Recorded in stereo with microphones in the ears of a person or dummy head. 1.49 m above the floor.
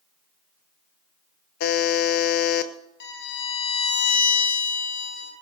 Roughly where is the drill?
No drill in this recording.